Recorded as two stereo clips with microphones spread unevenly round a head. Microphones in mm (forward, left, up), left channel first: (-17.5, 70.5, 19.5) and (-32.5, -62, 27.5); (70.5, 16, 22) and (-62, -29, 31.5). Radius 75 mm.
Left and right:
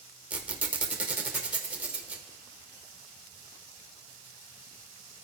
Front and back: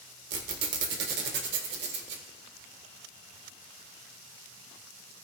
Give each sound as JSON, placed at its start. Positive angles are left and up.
{"t": 0.3, "sound": "a squeak", "azimuth_deg": -175, "distance_m": 1.6}